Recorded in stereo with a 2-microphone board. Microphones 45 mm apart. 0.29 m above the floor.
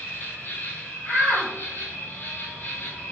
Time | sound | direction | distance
0.0 | an insect | 60° left (ahead or behind) | 1.1 m
1.1 | a shout | 35° left (ahead or behind) | 1.9 m